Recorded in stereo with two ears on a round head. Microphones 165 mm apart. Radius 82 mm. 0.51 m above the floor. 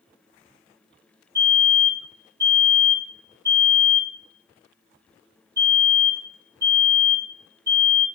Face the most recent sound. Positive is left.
turn(degrees=-15)  # may be behind; listen again after turning